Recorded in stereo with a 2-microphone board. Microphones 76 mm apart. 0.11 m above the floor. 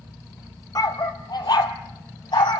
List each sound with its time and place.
0.8 s a dog barking: 55° left (ahead or behind), 1.2 m; by 2.6 s 75° left (ahead or behind), 1.9 m